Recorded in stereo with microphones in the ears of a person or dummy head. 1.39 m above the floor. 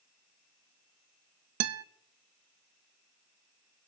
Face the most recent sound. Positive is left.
turn(degrees=-75)  # may be behind; listen again after turning